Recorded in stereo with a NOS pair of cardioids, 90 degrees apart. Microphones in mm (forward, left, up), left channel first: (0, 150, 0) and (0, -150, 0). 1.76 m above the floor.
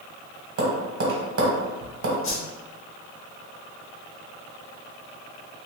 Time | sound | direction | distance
0.6 | tapping | 50° right | 1.3 m
2.2 | a whoosh | 45° left | 1.0 m